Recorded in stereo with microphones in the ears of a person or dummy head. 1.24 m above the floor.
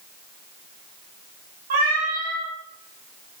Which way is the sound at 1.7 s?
45° right (ahead or behind).